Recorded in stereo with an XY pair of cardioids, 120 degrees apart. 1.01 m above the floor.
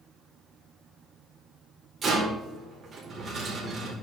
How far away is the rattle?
About 4 m.